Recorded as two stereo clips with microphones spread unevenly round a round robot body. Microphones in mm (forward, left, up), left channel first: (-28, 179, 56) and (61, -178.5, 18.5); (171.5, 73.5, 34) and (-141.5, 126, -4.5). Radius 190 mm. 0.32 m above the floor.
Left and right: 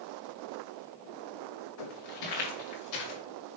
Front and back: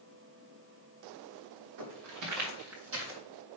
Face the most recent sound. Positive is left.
turn(degrees=115)